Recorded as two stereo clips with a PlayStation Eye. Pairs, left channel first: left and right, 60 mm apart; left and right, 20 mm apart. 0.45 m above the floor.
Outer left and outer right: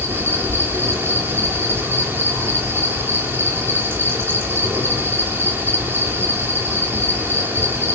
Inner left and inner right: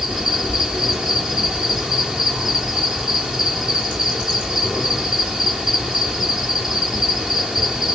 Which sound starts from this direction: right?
An insect, at 0.0 s.